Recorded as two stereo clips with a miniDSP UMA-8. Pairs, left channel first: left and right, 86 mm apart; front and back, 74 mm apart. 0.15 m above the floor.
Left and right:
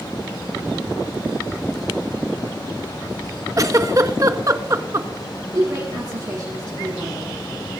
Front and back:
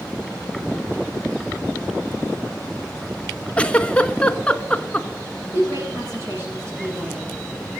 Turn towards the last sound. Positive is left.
turn(degrees=-130)